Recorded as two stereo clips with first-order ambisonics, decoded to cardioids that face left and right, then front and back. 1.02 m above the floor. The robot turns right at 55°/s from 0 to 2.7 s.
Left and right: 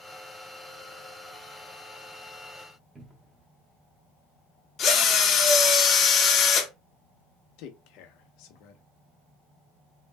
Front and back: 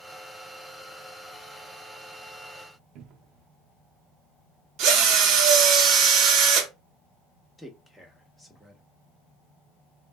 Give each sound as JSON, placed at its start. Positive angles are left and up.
{"t": 3.0, "sound": "a cupboard door", "azimuth_deg": -165, "distance_m": 0.7}
{"t": 4.8, "sound": "a drill", "azimuth_deg": 150, "distance_m": 0.9}
{"t": 7.6, "sound": "a man speaking", "azimuth_deg": 85, "distance_m": 0.9}